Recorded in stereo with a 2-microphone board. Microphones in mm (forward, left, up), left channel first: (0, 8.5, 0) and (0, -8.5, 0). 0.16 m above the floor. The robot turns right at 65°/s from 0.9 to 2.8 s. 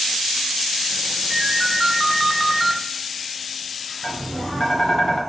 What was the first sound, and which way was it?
A ringtone, 15° right (ahead or behind).